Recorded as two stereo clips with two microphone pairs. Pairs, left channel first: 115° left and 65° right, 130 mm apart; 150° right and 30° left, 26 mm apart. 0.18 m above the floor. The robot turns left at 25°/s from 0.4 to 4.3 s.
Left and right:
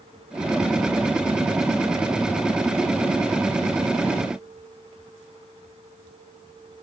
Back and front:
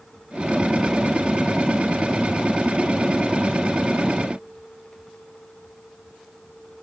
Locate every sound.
Only background noise.